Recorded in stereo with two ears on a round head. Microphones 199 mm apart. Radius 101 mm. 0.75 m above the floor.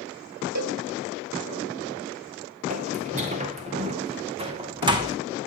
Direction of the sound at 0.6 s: 80° right.